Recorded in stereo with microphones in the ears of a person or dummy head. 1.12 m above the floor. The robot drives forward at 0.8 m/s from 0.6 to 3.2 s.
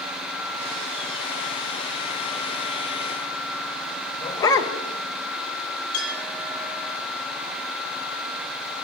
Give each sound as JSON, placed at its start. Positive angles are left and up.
{"t": 4.2, "sound": "a dog barking", "side_deg": 20, "distance_m": 1.4}
{"t": 5.9, "sound": "a clink", "side_deg": 45, "distance_m": 7.5}